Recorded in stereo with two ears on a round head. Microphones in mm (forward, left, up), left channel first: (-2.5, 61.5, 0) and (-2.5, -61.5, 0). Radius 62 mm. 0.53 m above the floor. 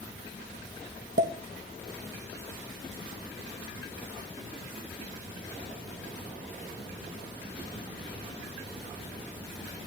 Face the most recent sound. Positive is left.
turn(degrees=-75)  # may be behind; listen again after turning